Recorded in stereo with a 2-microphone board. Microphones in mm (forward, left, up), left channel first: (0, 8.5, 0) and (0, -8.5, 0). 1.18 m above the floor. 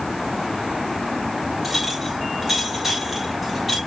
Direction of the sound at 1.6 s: 5° right (ahead or behind).